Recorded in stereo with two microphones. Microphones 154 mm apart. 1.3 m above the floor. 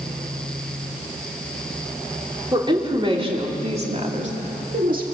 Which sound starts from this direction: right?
A woman speaking, at 2.5 s.